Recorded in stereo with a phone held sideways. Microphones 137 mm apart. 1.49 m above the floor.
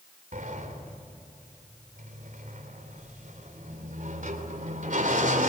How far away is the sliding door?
About 4 m.